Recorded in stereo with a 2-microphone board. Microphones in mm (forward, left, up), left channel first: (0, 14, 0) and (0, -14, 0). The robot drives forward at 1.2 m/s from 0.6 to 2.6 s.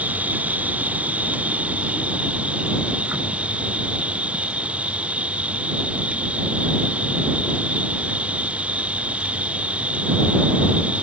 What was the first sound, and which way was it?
An insect, 70° right (ahead or behind).